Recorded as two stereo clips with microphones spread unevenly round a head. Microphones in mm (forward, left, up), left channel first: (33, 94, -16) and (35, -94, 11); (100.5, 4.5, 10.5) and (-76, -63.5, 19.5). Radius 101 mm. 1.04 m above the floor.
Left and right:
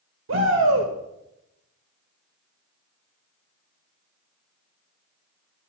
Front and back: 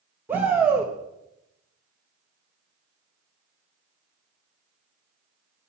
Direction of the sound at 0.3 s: 80° right.